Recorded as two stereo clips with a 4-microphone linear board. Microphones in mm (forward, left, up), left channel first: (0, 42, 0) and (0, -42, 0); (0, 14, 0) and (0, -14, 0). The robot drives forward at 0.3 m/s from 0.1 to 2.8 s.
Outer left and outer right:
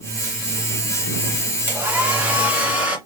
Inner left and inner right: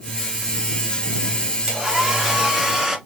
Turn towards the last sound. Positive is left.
turn(degrees=-15)  # may be behind; listen again after turning